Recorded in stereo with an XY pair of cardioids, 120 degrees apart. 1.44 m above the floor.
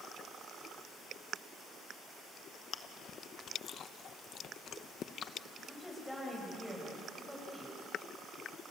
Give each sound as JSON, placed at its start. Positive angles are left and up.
{"t": 2.7, "sound": "chewing", "azimuth_deg": 50, "distance_m": 1.0}
{"t": 5.7, "sound": "a woman speaking", "azimuth_deg": 5, "distance_m": 7.5}